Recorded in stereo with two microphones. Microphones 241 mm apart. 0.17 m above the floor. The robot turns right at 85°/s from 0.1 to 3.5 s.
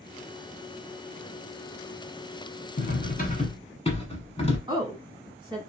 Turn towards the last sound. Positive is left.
turn(degrees=-20)  # may be behind; listen again after turning